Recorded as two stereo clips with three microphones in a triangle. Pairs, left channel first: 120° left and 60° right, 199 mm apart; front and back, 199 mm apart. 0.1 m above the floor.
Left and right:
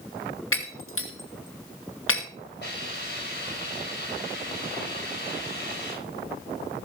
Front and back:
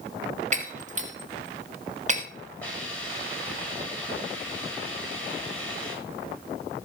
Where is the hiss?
80° left, 8 m.